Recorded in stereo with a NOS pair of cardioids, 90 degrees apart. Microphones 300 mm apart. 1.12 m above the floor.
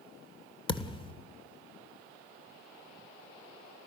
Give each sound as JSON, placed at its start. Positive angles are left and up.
{"t": 0.7, "sound": "a thud", "azimuth_deg": 20, "distance_m": 2.0}